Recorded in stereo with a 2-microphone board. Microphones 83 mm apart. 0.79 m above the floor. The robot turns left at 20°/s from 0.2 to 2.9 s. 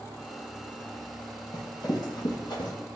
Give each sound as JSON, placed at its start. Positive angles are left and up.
{"t": 1.5, "sound": "running footsteps", "side_deg": 55, "distance_m": 1.3}